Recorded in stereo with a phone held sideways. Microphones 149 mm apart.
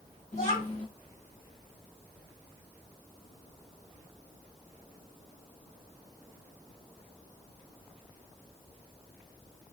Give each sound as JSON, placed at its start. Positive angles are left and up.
{"t": 0.3, "sound": "a child speaking", "side_deg": 55, "distance_m": 3.0}